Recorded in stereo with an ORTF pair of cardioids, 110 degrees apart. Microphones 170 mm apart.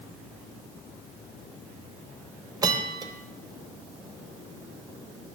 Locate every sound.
2.6 s a bell: 25° right, 0.7 m